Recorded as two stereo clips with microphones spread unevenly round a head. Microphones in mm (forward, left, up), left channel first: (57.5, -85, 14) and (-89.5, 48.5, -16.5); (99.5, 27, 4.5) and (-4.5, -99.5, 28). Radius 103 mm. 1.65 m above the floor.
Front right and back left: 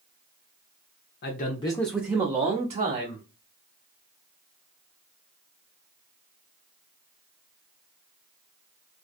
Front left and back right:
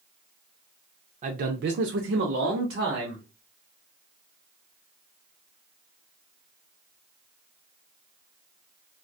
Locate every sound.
1.2 s a man speaking: 85° right, 0.6 m; by 3.3 s 175° right, 1.2 m